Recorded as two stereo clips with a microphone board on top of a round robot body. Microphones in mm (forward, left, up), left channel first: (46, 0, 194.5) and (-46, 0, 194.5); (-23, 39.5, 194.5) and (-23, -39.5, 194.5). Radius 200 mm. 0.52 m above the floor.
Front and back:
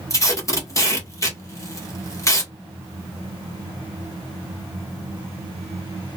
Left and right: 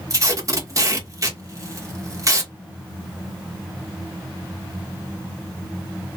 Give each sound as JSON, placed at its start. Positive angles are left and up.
{"t": 0.1, "sound": "tape being pulled", "azimuth_deg": -50, "distance_m": 1.6}